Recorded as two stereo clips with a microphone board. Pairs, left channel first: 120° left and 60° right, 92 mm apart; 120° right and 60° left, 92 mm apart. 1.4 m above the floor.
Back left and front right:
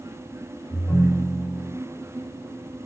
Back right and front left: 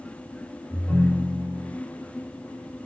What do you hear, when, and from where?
0.7 s a ringtone: 160° left, 1.5 m